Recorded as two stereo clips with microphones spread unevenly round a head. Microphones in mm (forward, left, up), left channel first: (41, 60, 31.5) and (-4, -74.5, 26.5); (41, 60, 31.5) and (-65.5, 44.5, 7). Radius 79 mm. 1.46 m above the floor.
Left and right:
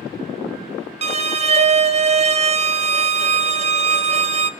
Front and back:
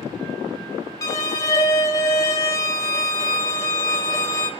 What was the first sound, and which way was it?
A violin, 65° right.